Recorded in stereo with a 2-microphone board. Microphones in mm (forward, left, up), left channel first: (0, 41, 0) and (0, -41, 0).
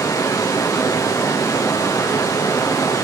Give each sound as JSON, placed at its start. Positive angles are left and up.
{"t": 0.0, "sound": "running water", "side_deg": 45, "distance_m": 3.0}